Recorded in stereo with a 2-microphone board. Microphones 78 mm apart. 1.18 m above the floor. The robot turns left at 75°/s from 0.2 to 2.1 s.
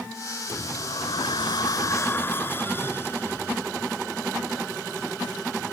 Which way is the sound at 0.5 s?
150° left.